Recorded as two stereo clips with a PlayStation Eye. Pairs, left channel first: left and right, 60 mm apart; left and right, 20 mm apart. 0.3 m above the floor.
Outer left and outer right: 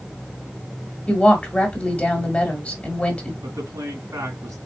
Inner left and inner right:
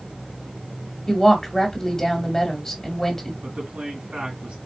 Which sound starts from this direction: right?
A man speaking, at 3.4 s.